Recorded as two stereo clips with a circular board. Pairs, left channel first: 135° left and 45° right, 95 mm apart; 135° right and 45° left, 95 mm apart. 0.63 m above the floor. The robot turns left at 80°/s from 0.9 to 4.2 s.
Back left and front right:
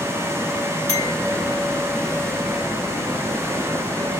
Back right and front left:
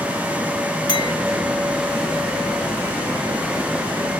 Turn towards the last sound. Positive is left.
turn(degrees=-80)